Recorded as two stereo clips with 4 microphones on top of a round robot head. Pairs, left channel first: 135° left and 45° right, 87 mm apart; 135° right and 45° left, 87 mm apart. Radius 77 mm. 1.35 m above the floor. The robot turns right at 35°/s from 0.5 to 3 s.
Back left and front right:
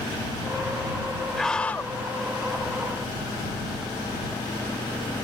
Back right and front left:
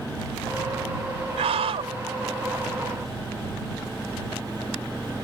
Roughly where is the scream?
Ahead left.